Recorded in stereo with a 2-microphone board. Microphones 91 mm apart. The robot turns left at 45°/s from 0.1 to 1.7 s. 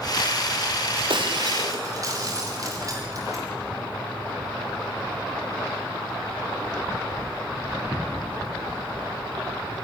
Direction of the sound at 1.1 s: 65° right (ahead or behind).